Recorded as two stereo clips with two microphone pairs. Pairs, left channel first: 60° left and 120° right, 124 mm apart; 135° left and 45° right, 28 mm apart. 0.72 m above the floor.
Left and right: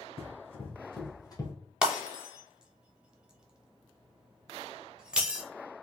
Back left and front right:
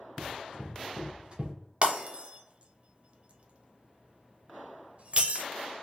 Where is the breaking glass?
45° right, 0.6 m.